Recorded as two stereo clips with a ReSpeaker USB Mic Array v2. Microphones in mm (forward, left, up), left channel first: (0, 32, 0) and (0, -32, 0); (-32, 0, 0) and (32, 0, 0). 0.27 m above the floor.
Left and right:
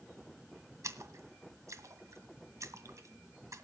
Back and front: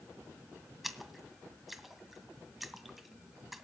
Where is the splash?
85° right, 1.9 m.